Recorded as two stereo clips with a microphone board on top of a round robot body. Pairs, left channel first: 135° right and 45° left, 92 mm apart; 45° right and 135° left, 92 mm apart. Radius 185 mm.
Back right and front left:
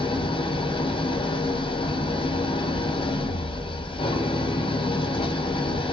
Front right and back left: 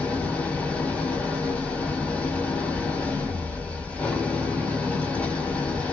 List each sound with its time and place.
0.0 s an engine running: 120° right, 0.8 m